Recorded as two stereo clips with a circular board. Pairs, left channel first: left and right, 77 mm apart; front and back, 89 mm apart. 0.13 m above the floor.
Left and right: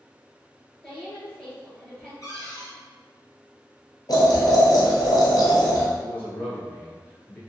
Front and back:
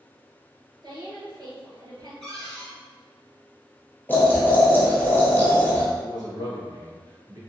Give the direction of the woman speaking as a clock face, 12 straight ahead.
6 o'clock.